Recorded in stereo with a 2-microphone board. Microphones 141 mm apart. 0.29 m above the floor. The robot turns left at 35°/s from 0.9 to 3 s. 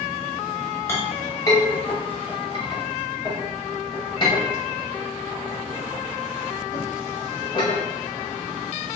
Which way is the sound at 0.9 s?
15° left (ahead or behind).